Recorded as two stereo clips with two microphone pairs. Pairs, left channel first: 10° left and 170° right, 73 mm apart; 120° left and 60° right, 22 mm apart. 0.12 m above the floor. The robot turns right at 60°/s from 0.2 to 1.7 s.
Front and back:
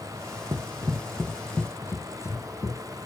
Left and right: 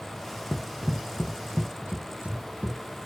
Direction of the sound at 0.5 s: 170° right.